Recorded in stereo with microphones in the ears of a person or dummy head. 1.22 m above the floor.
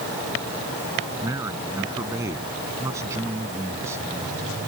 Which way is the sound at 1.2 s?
20° right (ahead or behind).